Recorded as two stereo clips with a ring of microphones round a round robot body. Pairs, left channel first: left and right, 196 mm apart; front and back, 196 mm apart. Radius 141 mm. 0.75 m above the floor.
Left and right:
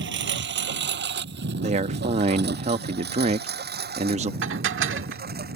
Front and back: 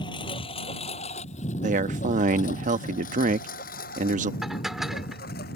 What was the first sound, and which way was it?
A lawn mower, 75° right.